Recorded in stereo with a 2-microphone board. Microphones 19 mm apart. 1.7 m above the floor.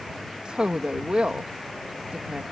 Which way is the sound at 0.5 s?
65° right (ahead or behind).